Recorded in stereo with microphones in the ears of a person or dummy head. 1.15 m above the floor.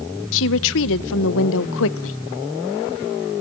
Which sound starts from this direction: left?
A woman speaking, at 0.3 s.